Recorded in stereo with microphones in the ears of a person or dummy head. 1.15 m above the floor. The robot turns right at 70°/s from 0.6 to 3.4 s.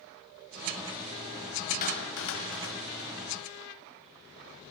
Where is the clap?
45° left (ahead or behind), 4.5 m; by 3.1 s 40° left (ahead or behind), 4.5 m.